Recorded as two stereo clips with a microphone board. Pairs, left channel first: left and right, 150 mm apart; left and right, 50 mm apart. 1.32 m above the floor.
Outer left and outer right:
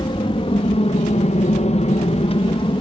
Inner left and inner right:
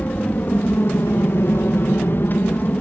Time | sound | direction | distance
0.0 | an aircraft | 35° left (ahead or behind) | ?